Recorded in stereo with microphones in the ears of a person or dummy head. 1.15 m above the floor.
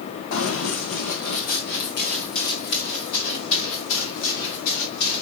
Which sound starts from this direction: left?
Running footsteps, at 0.3 s.